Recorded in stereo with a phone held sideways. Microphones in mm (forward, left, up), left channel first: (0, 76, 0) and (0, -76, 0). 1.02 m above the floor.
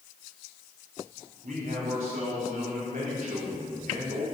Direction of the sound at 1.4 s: 65° right (ahead or behind).